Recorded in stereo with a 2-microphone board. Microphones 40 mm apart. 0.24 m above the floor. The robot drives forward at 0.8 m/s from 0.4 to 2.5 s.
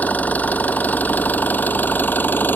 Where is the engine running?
45° left (ahead or behind); by 2.6 s 60° left (ahead or behind).